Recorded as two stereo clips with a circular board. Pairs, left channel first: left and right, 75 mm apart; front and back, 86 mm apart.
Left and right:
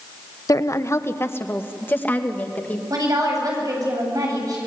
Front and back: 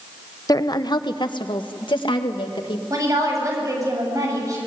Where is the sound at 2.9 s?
130° right, 8.5 m.